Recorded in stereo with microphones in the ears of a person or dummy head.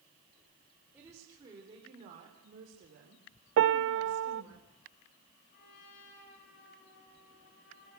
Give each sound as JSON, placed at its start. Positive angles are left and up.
{"t": 0.9, "sound": "a woman speaking", "side_deg": -15, "distance_m": 4.0}
{"t": 3.6, "sound": "a piano", "side_deg": -60, "distance_m": 0.5}
{"t": 5.5, "sound": "a trumpet", "side_deg": 60, "distance_m": 8.0}